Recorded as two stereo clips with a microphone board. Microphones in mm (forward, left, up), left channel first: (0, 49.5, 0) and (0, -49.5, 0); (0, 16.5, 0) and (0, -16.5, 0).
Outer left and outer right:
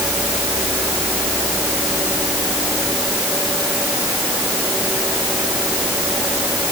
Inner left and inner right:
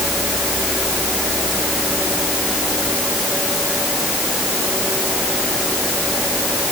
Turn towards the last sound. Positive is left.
No sound to turn to.